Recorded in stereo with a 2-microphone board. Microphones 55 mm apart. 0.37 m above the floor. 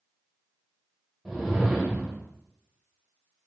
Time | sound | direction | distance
1.2 | a whoosh | centre (ahead or behind) | 0.5 m